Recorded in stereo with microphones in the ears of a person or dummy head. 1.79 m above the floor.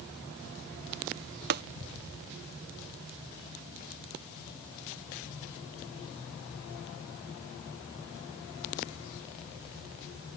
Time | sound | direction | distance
1.5 | tapping | 50° right (ahead or behind) | ?